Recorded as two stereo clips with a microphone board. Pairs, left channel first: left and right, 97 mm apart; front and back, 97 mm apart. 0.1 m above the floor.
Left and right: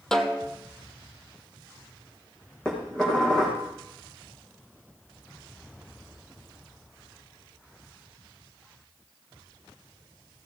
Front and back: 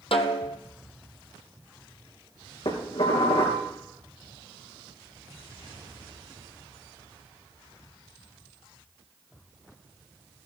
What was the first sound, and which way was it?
A snare drum, 5° left.